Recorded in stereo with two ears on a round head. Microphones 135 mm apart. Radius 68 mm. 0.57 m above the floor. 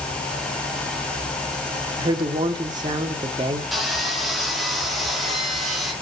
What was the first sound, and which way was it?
A woman speaking, 30° right (ahead or behind).